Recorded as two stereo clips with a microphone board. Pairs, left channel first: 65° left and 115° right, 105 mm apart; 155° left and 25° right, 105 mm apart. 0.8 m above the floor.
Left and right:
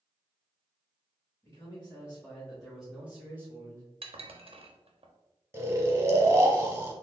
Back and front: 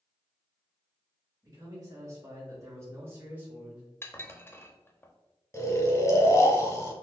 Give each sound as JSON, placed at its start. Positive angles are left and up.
{"t": 1.4, "sound": "a man speaking", "azimuth_deg": 15, "distance_m": 1.4}
{"t": 4.0, "sound": "dishes clattering", "azimuth_deg": -135, "distance_m": 0.5}
{"t": 5.5, "sound": "snoring", "azimuth_deg": -160, "distance_m": 0.8}